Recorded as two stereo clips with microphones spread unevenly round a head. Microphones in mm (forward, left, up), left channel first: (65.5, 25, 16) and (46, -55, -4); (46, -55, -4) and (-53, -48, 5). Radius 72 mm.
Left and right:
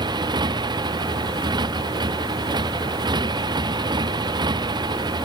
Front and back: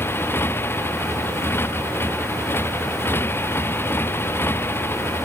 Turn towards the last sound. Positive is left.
turn(degrees=-70)